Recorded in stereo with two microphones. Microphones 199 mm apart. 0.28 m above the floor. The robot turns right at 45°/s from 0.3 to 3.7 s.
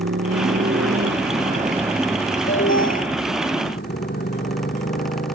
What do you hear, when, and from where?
0.0 s a motorcycle: 100° right; by 5.3 s 55° left
2.5 s an alarm: 75° left (ahead or behind)